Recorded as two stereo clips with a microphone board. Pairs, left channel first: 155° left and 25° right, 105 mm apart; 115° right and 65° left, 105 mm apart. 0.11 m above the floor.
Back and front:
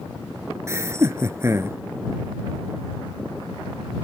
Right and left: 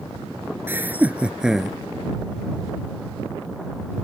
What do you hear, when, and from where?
0.7 s laughter: 15° left; by 1.8 s 20° right